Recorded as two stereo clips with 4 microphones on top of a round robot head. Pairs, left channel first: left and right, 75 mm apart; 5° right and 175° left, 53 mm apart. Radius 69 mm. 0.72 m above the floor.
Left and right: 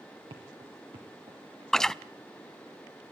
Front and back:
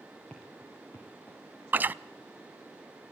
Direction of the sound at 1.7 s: 170° left.